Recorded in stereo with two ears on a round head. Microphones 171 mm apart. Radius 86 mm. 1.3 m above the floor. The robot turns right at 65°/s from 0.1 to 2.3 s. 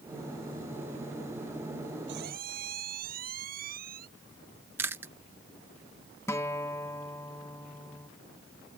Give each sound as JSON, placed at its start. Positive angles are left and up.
{"t": 2.1, "sound": "a squeak", "side_deg": -60}
{"t": 4.8, "sound": "chewing", "side_deg": -10}
{"t": 6.3, "sound": "a guitar", "side_deg": 15}